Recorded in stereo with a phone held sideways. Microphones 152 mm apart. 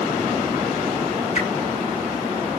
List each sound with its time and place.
1.4 s a whoosh: 50° left (ahead or behind), 1.4 m